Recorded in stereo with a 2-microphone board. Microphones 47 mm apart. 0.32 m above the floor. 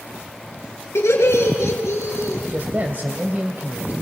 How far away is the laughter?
About 4.5 m.